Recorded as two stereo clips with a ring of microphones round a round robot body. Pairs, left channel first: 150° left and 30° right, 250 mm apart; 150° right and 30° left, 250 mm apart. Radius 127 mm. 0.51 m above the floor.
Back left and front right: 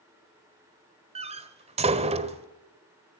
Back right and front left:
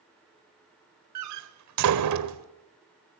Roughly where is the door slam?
Ahead left.